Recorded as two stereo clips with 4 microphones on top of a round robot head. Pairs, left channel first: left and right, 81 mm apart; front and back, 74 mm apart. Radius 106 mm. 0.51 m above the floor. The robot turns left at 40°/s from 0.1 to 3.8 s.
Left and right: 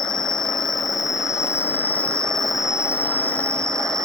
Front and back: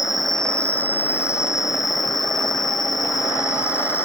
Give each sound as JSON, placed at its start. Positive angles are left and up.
{"t": 0.0, "sound": "an insect", "azimuth_deg": 95}